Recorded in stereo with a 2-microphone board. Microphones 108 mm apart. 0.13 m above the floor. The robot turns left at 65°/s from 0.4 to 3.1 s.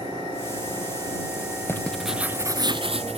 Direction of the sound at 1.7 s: 25° left.